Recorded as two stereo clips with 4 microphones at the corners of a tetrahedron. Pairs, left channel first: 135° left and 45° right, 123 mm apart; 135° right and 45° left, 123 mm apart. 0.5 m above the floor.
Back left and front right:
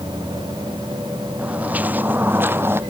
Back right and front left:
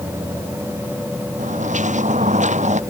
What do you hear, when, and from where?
1.4 s footsteps: 35° left; by 2.8 s 25° left